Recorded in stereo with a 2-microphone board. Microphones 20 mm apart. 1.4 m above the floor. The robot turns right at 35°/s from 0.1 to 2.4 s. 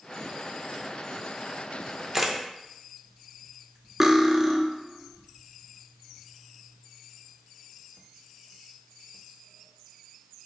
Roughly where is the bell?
I don't hear a bell.